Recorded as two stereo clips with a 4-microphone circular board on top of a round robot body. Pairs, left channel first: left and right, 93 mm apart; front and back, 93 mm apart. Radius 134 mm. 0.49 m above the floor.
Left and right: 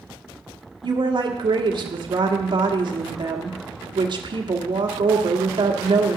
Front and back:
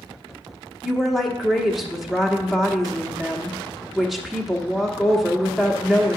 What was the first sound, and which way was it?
A woman speaking, 90° right.